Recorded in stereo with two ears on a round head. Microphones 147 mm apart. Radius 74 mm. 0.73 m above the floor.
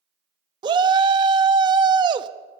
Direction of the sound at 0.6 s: 30° right (ahead or behind).